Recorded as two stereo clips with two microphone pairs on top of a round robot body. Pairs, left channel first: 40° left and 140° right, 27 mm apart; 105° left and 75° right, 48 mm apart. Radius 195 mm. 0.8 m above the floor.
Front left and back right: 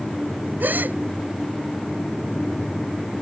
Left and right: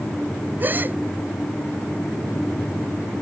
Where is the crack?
No crack in this recording.